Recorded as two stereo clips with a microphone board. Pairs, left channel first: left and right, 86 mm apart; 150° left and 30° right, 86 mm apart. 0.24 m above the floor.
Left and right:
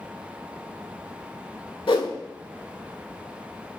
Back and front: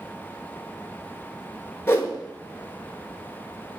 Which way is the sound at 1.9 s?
90° left.